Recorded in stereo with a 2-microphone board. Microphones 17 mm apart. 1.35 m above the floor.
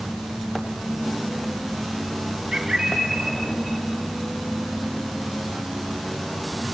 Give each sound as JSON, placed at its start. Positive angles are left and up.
{"t": 2.5, "sound": "a bird", "side_deg": -45, "distance_m": 2.5}